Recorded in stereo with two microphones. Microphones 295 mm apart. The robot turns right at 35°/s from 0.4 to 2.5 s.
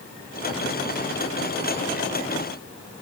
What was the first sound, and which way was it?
Only background noise.